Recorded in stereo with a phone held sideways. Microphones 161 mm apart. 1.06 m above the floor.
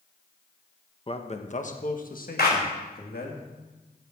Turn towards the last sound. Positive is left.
turn(degrees=85)